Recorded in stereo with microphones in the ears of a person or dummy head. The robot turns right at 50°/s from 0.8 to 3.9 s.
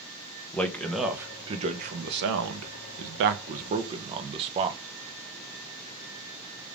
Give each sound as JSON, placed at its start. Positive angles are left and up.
{"t": 0.5, "sound": "a man speaking", "azimuth_deg": 175, "distance_m": 0.7}